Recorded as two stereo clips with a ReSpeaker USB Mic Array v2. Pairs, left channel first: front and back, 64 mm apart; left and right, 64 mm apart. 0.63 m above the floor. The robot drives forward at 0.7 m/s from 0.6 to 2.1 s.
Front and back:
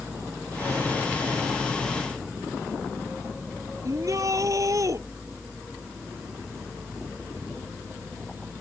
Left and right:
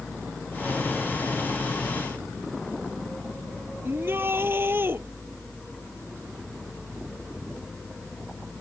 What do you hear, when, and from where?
3.8 s a shout: 145° right